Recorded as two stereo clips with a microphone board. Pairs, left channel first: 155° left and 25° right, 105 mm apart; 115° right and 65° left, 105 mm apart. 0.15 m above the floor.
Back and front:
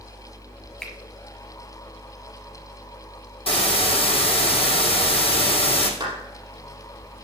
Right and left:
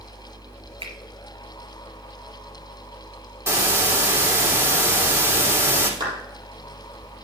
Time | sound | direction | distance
0.8 | a finger snap | 75° left | 3 m
3.5 | a hiss | 130° left | 2.5 m
6.0 | a clap | 25° left | 4 m